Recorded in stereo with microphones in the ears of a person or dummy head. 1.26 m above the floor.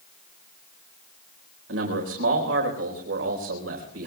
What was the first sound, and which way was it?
A man speaking, 75° right (ahead or behind).